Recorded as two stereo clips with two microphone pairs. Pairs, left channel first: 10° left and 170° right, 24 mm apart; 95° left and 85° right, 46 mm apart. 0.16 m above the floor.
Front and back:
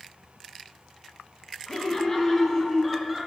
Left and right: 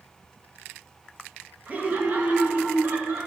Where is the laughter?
35° right, 2.5 m; by 3.3 s 85° right, 1.7 m.